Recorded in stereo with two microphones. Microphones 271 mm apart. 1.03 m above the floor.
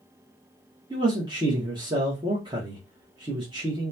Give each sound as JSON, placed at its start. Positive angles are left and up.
{"t": 0.9, "sound": "a man speaking", "side_deg": -15, "distance_m": 0.8}